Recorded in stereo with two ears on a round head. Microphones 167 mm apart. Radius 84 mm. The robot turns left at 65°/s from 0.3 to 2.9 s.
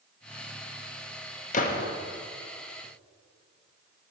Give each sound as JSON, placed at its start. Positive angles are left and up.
{"t": 1.5, "sound": "a gunshot", "side_deg": 40, "distance_m": 0.8}